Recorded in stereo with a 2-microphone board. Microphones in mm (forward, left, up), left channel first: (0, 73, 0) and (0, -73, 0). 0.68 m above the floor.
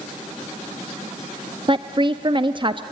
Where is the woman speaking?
35° right (ahead or behind), 0.5 m.